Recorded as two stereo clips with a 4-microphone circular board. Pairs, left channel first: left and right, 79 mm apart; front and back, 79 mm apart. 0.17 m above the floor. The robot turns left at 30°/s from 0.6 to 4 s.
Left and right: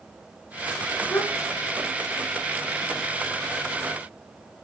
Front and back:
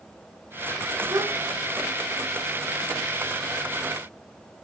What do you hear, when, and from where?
1.1 s a gasp: 150° left, 3 m; by 1.3 s 140° left, 3 m